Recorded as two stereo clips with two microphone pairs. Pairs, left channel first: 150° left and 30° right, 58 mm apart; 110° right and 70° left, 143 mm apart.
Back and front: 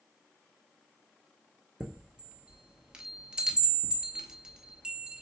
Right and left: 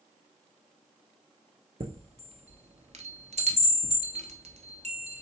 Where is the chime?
40° left, 0.8 m.